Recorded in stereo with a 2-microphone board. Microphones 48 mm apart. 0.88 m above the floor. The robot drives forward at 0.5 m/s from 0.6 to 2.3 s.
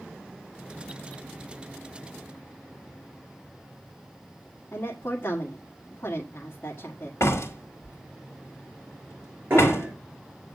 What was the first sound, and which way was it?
A woman speaking, 45° left (ahead or behind).